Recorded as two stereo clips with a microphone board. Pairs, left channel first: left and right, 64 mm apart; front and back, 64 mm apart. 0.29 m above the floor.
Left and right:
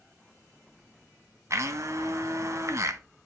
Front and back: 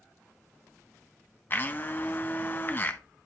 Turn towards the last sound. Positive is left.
turn(degrees=-55)